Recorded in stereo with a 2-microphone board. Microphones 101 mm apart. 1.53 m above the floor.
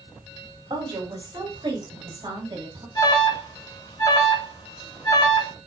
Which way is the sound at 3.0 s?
45° left (ahead or behind).